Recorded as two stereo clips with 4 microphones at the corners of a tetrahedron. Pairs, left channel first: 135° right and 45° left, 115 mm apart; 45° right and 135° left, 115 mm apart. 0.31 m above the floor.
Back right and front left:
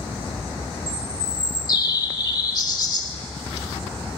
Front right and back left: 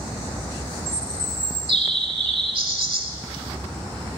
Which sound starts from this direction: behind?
A bird, at 0.9 s.